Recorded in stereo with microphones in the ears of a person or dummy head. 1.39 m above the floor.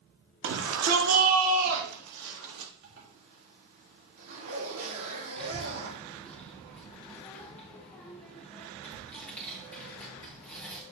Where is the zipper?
85° right, 3 m.